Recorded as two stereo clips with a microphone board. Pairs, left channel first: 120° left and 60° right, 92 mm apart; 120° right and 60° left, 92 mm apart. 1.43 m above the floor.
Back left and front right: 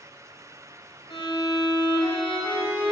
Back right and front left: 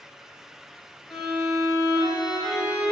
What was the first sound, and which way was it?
A violin, 145° left.